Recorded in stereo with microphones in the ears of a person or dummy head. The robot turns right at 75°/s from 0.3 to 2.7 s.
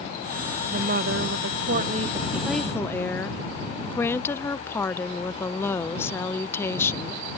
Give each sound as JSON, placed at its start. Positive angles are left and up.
{"t": 0.7, "sound": "a woman speaking", "azimuth_deg": -140}